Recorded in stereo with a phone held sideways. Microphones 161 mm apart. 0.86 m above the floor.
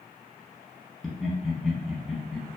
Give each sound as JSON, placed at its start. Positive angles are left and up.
{"t": 1.0, "sound": "laughter", "side_deg": 0, "distance_m": 0.9}